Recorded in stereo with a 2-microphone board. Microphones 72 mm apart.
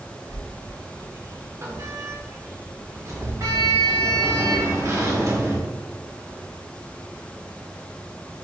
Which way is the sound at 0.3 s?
40° right (ahead or behind).